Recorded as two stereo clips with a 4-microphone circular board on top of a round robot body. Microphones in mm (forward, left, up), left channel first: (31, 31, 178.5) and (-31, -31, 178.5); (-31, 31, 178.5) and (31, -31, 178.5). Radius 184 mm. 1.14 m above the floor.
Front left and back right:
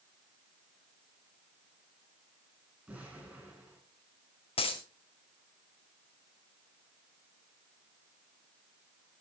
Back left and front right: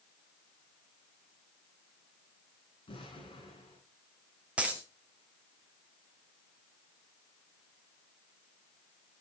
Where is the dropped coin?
30° left, 1.6 m.